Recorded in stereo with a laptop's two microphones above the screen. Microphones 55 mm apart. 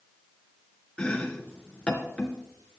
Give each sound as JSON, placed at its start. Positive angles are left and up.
{"t": 1.0, "sound": "chopping", "side_deg": 20, "distance_m": 2.0}